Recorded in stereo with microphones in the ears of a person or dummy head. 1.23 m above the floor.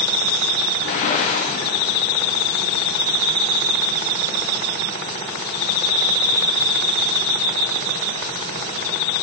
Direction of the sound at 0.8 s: 50° left (ahead or behind).